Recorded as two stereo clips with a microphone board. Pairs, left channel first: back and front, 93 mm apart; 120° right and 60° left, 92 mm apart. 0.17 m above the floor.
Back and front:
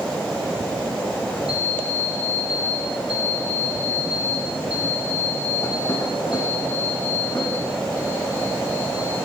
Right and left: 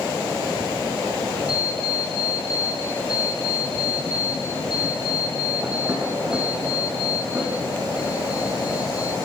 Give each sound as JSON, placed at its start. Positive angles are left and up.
{"t": 1.5, "sound": "an alarm clock", "azimuth_deg": 140, "distance_m": 4.0}